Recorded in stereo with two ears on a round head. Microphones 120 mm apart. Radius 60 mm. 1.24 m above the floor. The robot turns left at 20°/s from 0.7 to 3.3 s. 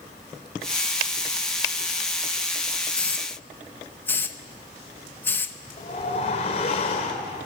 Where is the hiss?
10° left (ahead or behind), 1.0 m; by 5.6 s 15° left (ahead or behind), 1.0 m.